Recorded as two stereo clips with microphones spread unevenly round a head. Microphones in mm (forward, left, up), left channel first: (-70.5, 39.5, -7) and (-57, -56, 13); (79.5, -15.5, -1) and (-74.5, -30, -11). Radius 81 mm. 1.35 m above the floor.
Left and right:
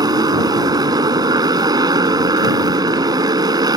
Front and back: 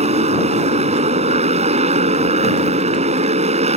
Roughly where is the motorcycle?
Behind right.